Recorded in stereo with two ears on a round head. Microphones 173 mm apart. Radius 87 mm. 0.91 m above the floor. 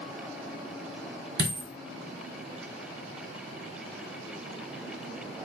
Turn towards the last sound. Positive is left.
turn(degrees=-45)  # may be behind; listen again after turning